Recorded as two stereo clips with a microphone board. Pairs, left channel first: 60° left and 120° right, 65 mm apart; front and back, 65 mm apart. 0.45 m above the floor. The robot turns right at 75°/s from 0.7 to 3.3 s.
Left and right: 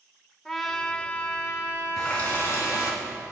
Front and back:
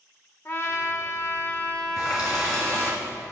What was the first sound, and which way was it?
A trumpet, 25° right.